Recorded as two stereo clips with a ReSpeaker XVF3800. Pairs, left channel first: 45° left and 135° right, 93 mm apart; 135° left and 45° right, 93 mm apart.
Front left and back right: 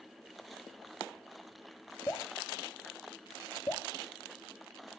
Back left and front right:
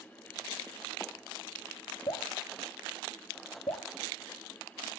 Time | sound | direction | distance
2.1 | dripping | 105° left | 3.5 m